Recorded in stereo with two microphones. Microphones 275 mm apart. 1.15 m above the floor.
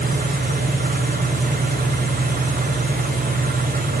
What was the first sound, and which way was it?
An engine running, 30° right (ahead or behind).